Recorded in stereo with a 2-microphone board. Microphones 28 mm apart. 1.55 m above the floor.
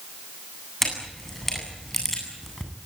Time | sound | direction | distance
0.8 | a camera shutter | 10° left (ahead or behind) | 8.5 m